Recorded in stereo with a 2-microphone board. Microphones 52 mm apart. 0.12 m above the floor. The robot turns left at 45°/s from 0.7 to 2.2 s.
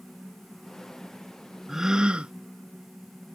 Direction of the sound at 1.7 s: 10° right (ahead or behind).